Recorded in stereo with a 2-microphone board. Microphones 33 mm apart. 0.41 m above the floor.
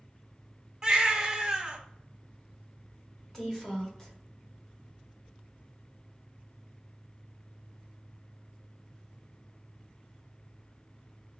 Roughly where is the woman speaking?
Centre.